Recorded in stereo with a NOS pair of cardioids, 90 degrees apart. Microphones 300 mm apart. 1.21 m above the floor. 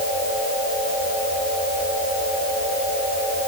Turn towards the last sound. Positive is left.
No sound to turn to.